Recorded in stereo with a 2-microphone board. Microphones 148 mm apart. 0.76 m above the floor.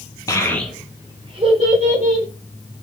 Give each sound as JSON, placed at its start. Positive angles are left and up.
{"t": 0.3, "sound": "a child speaking", "side_deg": 25, "distance_m": 0.6}